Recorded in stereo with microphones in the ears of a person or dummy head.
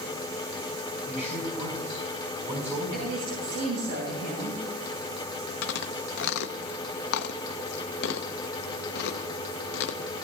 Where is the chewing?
70° left (ahead or behind), 0.7 m.